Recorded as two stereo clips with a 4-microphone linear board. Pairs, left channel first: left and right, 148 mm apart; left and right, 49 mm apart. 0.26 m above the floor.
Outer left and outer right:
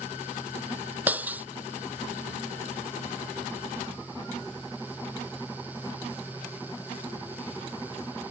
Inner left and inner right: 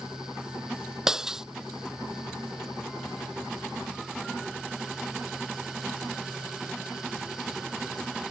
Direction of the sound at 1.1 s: 10° right (ahead or behind).